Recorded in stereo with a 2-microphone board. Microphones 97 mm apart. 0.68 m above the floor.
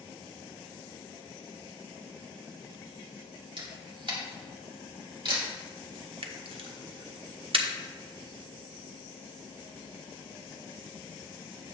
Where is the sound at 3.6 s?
55° right (ahead or behind), 2.0 m.